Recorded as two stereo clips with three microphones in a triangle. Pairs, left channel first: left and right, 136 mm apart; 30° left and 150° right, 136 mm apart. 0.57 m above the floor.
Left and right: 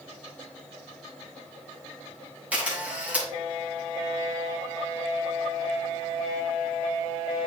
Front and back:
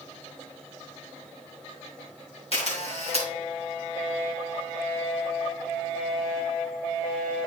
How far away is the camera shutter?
About 2.5 m.